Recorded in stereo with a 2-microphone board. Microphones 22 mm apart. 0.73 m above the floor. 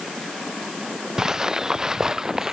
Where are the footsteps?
25° right (ahead or behind).